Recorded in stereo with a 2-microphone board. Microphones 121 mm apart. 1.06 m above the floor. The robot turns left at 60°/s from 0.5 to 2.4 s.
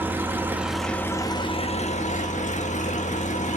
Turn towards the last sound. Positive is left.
turn(degrees=85)